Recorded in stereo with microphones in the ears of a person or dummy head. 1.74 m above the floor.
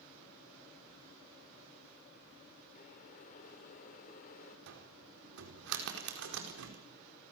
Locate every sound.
2.8 s boiling: 50° left (ahead or behind), 4.5 m
4.7 s a cupboard door: 70° right (ahead or behind), 4 m